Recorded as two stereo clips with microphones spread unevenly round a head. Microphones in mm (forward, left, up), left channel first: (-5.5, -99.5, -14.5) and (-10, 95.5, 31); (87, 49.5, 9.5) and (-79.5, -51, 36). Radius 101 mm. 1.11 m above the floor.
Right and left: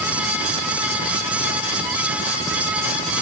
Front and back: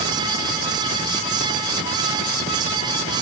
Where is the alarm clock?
I don't hear an alarm clock.